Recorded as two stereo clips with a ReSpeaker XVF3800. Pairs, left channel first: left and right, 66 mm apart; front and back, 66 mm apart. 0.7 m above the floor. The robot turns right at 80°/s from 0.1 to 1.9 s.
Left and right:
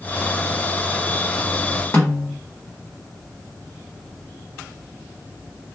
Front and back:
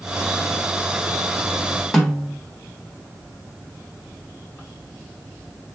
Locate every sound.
1.9 s a snare drum: 80° left, 1.1 m